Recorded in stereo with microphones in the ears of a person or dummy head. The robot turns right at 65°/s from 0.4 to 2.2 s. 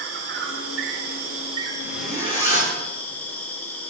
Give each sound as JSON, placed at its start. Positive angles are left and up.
{"t": 0.0, "sound": "an insect", "azimuth_deg": -105, "distance_m": 1.5}
{"t": 1.8, "sound": "a zipper", "side_deg": 0, "distance_m": 3.5}